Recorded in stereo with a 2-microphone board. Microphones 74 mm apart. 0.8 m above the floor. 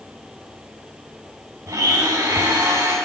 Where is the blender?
65° right (ahead or behind), 6.5 m.